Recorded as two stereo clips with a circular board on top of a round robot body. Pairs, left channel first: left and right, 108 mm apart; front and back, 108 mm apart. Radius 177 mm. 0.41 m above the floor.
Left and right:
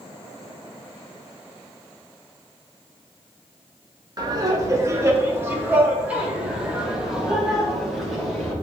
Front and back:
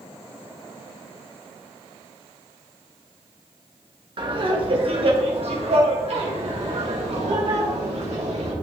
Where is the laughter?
140° right, 2.5 m; by 8.5 s straight behind, 4 m.